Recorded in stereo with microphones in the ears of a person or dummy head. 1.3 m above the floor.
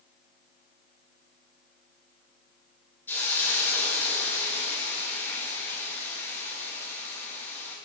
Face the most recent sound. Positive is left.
turn(degrees=10)  # may be behind; listen again after turning